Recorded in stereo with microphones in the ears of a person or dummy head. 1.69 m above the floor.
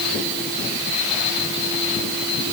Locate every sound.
Only background noise.